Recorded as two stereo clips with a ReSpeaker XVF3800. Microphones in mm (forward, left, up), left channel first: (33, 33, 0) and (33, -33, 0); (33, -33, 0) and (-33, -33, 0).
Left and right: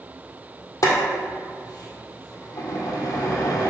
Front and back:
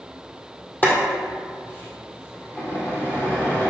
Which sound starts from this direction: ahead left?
Boiling, at 0.8 s.